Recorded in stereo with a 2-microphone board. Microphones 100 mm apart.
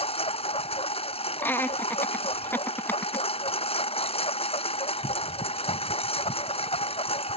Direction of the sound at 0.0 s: 65° left (ahead or behind).